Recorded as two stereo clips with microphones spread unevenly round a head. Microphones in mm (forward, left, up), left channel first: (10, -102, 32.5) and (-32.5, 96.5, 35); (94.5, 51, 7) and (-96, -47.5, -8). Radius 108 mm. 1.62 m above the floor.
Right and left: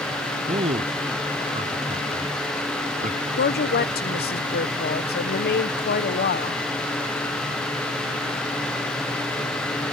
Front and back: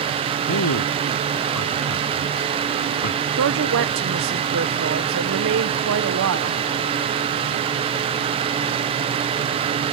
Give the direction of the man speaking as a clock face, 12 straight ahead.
11 o'clock.